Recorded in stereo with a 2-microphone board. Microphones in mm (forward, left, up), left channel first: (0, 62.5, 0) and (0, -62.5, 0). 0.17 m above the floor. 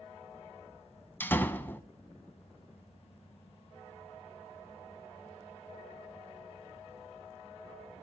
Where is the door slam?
15° left (ahead or behind), 0.7 m.